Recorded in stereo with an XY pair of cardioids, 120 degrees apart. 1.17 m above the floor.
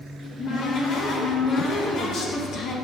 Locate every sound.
0.2 s a cupboard door: 50° left, 1.1 m